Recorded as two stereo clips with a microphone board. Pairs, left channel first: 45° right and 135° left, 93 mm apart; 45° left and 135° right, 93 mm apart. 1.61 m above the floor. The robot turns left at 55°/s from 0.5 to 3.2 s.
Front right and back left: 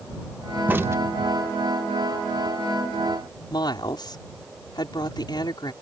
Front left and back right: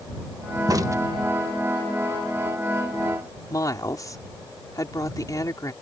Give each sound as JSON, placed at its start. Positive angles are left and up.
{"t": 0.7, "sound": "a crack", "azimuth_deg": -165}
{"t": 3.5, "sound": "a woman speaking", "azimuth_deg": -5}